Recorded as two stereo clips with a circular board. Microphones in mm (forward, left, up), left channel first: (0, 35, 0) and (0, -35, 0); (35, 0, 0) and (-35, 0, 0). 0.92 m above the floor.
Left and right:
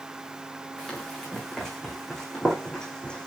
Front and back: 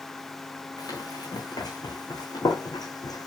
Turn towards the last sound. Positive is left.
turn(degrees=15)